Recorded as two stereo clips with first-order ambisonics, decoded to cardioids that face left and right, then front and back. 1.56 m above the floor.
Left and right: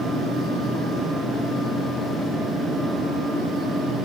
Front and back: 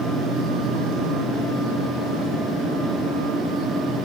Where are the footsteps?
No footsteps in this recording.